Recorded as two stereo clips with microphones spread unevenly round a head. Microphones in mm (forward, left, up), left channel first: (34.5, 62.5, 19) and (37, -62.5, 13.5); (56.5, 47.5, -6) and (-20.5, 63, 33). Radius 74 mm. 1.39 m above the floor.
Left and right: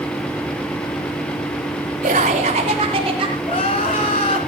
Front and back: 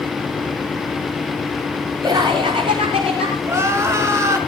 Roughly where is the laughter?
Behind right.